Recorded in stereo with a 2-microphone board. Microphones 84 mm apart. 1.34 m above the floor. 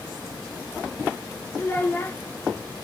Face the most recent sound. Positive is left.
turn(degrees=25)  # may be behind; listen again after turning